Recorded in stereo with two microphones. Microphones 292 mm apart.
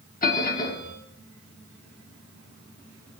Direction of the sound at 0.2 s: 30° left (ahead or behind).